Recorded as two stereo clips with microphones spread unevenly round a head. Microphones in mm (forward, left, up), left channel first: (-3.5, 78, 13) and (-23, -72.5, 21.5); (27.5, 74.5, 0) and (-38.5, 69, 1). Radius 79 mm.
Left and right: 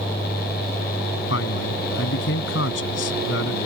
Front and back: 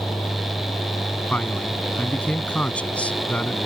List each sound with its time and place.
1.3 s a man speaking: 75° left